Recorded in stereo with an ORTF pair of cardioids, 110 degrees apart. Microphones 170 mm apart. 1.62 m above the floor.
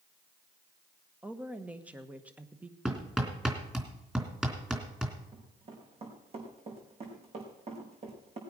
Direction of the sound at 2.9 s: 5° right.